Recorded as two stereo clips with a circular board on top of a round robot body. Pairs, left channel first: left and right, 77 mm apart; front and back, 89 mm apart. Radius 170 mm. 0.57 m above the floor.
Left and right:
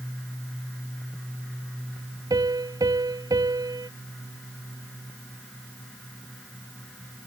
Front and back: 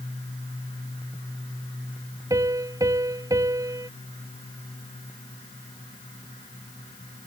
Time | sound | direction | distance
2.3 | a piano | 130° right | ?